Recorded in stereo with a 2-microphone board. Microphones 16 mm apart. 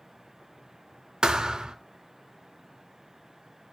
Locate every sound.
1.2 s a thud: 75° right (ahead or behind), 0.5 m